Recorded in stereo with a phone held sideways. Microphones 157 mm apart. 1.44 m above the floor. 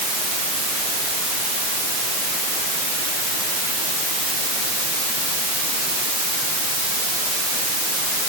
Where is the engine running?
No engine running in this recording.